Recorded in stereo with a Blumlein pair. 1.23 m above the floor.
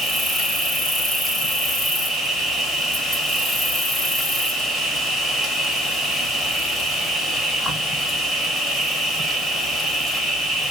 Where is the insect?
Straight ahead, 0.8 m.